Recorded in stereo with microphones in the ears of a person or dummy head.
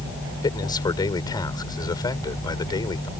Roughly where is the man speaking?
Left.